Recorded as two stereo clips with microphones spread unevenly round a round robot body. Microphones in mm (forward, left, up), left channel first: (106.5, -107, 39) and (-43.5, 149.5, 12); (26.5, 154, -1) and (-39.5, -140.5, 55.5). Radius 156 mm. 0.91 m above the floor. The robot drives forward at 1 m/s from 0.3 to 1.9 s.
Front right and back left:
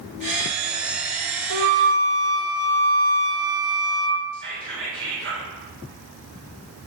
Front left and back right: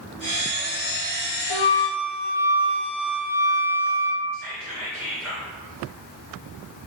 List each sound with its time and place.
1.5 s a flute: 80° left, 0.6 m; by 4.2 s 120° left, 0.6 m
4.3 s whispering: 170° left, 2 m